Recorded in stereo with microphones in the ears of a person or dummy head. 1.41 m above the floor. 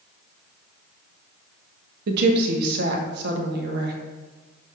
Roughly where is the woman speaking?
Right.